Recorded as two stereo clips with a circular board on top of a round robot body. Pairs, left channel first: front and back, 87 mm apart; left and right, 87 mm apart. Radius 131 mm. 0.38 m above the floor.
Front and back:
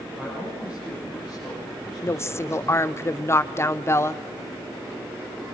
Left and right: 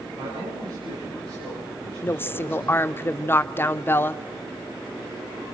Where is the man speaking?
105° right, 8.5 m; by 2.8 s 95° right, 9.5 m.